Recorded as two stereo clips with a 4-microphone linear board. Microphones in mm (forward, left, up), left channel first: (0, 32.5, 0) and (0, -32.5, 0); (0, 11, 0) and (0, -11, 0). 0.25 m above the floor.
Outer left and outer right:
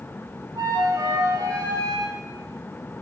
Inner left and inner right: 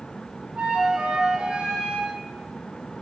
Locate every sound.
0.6 s a flute: 75° right (ahead or behind), 9.5 m